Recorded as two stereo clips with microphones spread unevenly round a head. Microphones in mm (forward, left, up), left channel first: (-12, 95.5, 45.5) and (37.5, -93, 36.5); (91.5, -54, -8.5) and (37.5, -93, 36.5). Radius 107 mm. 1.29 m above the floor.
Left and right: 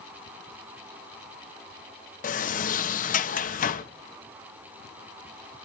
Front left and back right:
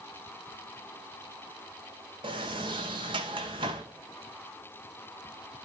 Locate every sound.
2.2 s a sliding door: 150° left, 1.1 m